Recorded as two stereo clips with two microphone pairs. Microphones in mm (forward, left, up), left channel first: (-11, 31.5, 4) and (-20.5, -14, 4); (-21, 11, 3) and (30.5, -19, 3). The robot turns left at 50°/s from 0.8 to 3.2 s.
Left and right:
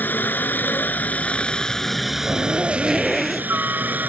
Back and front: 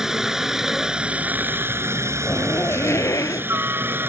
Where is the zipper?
145° right; by 3.5 s 170° left.